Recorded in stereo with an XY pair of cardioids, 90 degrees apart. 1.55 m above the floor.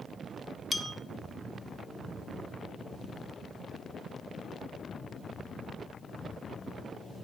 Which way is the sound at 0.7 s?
30° left.